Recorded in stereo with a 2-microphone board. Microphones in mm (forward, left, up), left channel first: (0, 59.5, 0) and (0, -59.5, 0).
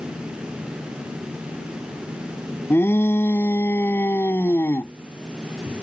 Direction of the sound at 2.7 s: 20° left (ahead or behind).